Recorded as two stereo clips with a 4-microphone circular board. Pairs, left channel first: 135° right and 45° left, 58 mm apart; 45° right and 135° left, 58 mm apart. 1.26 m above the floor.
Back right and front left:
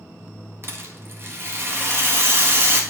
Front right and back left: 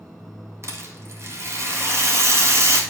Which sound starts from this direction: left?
A rattle, at 0.6 s.